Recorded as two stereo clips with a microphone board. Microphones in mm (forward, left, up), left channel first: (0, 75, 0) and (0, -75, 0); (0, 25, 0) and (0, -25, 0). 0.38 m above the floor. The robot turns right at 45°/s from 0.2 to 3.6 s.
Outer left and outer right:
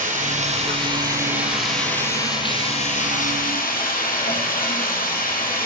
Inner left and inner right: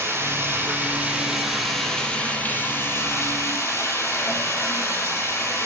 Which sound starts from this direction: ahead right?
Running water, at 0.0 s.